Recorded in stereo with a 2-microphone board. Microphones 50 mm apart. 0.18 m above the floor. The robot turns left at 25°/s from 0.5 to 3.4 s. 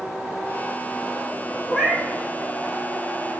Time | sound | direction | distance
1.7 | a cat meowing | 10° right (ahead or behind) | 1.8 m